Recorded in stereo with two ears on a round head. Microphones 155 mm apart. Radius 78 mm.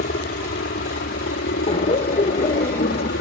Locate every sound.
0.0 s a helicopter: 55° left (ahead or behind); by 3.2 s 65° left (ahead or behind)
1.7 s laughter: 35° left (ahead or behind)